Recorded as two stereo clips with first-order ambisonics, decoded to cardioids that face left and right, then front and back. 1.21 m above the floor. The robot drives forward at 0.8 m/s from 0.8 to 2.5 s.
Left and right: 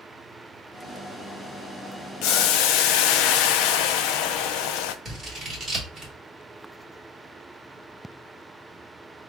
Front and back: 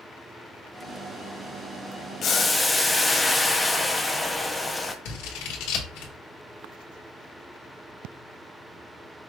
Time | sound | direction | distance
2.2 | boiling | 55° left | 0.6 m
5.0 | scissors | 10° right | 1.8 m